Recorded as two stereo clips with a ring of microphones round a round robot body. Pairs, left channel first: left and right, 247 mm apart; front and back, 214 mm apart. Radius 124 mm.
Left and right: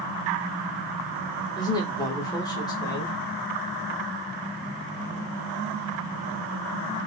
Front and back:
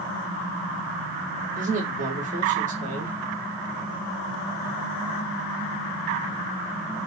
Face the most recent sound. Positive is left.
turn(degrees=155)